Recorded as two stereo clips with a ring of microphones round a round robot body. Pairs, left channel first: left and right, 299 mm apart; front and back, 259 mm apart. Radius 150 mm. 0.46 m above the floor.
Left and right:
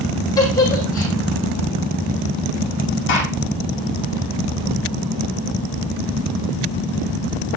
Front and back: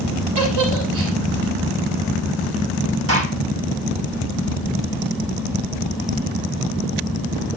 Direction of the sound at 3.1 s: 145° left.